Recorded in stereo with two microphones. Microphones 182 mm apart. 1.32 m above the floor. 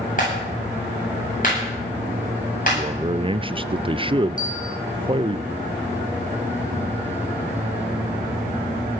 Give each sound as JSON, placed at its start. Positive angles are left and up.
{"t": 0.2, "sound": "a clap", "side_deg": 50, "distance_m": 9.0}
{"t": 2.7, "sound": "a man speaking", "side_deg": -30, "distance_m": 0.5}
{"t": 4.4, "sound": "a bell", "side_deg": 50, "distance_m": 4.5}